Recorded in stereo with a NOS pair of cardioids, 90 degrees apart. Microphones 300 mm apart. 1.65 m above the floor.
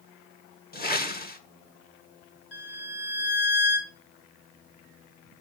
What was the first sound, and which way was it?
A whoosh, 30° left.